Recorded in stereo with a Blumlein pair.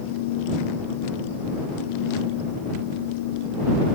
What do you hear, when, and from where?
0.0 s a fan: 50° left